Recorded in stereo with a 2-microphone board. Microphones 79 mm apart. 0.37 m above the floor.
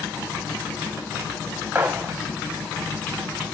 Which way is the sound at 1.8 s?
20° right (ahead or behind).